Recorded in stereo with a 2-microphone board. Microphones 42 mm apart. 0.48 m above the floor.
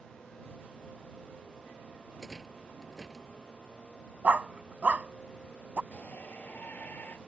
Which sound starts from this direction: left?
A shout, at 5.9 s.